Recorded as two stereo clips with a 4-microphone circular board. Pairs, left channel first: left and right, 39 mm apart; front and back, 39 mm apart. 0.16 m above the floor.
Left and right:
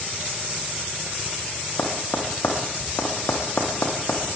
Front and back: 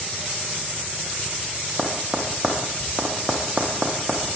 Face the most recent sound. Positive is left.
turn(degrees=115)